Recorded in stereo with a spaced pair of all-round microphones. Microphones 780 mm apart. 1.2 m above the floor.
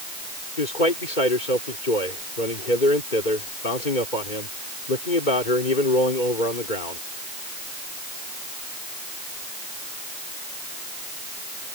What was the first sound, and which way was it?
A man speaking, 80° left.